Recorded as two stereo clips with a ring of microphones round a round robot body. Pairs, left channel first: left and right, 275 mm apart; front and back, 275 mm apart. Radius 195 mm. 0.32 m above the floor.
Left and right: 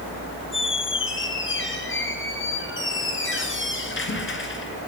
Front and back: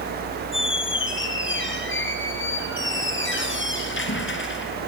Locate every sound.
0.5 s a squeak: 45° left, 3 m